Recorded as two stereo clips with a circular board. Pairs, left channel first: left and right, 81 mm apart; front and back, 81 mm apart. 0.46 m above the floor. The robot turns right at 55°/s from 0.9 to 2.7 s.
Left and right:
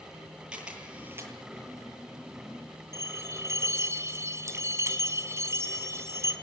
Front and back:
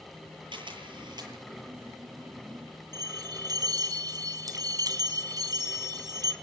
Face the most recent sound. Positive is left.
turn(degrees=-145)